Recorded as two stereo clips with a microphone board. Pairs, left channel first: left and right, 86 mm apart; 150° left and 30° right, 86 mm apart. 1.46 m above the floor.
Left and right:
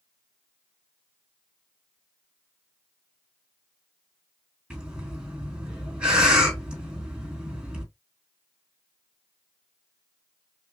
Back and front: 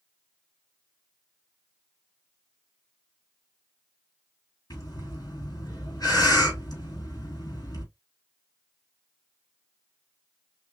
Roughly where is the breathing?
Behind.